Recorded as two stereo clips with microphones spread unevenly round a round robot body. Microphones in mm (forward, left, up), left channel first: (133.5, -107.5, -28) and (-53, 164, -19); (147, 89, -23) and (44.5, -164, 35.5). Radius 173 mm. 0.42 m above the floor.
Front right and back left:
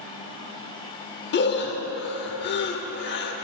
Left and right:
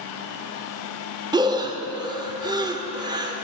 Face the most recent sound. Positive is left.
turn(degrees=-30)